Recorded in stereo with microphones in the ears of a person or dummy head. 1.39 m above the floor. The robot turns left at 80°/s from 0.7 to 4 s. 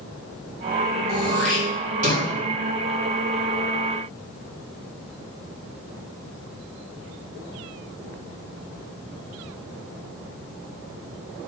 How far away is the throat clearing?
About 3 m.